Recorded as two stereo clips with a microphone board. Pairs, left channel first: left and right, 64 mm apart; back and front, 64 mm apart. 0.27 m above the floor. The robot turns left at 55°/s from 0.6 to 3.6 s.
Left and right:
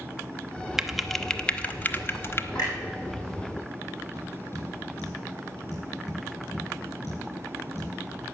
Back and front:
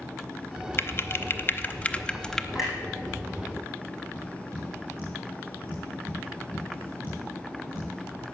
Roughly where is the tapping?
Ahead left.